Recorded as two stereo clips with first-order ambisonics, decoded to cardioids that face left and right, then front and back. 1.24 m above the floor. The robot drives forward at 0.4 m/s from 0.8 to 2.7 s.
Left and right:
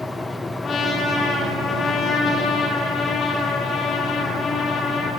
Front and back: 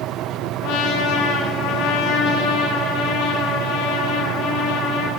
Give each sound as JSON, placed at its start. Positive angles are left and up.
{"t": 0.6, "sound": "a trumpet", "azimuth_deg": 25, "distance_m": 3.5}